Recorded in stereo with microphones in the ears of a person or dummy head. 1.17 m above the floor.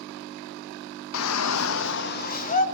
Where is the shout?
75° left (ahead or behind), 1.0 m; by 2.6 s 35° left (ahead or behind), 2 m.